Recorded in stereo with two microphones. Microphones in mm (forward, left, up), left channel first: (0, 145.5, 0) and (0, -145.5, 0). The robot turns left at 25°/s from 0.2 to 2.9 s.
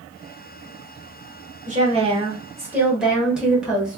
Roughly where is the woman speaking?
Behind right.